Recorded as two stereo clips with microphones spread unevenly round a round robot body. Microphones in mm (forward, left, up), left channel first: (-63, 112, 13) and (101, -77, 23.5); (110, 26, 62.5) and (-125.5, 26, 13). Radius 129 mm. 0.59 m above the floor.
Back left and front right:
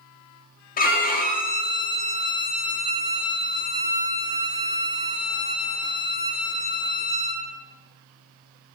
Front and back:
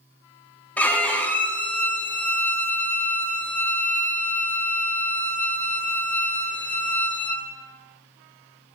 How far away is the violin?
About 0.8 m.